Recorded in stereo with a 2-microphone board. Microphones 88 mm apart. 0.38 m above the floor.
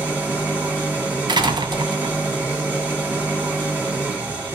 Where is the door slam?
60° right (ahead or behind), 1.6 m.